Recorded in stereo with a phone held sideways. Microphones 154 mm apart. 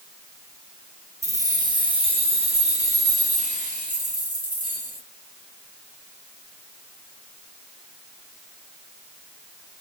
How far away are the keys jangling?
About 0.9 m.